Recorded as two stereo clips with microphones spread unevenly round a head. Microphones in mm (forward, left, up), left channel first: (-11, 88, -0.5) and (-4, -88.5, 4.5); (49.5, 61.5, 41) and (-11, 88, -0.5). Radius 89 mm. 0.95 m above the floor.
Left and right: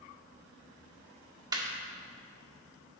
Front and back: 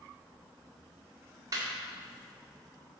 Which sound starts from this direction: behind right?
Laughter, at 1.5 s.